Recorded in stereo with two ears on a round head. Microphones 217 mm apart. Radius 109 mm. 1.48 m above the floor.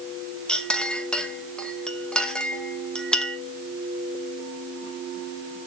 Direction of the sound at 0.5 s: 5° left (ahead or behind).